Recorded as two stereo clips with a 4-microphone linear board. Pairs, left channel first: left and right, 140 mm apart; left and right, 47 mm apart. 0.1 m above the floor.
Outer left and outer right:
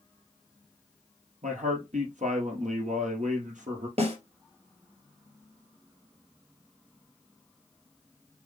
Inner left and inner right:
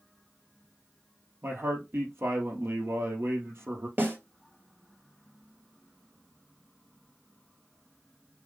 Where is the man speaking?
65° right (ahead or behind), 2.5 m.